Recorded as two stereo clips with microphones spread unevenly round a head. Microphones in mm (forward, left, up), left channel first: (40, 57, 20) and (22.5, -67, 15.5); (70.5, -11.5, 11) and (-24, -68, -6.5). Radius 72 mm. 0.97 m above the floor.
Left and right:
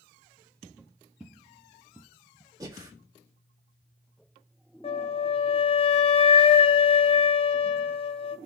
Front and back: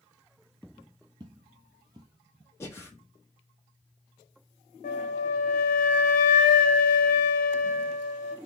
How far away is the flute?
About 0.6 m.